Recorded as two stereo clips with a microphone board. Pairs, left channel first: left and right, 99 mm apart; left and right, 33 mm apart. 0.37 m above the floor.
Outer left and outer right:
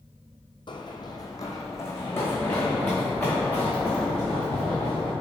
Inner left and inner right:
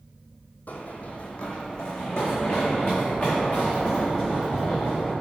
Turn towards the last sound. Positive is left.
turn(degrees=10)  # may be behind; listen again after turning